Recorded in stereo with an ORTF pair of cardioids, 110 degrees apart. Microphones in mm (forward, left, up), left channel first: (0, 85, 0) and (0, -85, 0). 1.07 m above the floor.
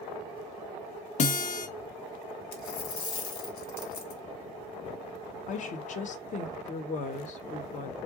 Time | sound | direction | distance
1.2 | a guitar | 45° left | 0.8 m
2.5 | a dropped coin | 70° left | 1.3 m
5.5 | a woman speaking | 50° left | 0.9 m